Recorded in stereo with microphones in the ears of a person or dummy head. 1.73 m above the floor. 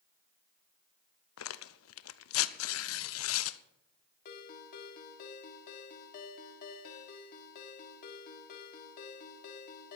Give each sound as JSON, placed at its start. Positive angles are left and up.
{"t": 1.4, "sound": "tearing paper", "side_deg": 85, "distance_m": 0.8}
{"t": 4.2, "sound": "a ringtone", "side_deg": 50, "distance_m": 2.0}